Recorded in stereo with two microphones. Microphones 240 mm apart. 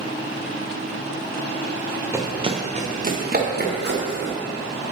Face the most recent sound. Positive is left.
turn(degrees=-45)  # may be behind; listen again after turning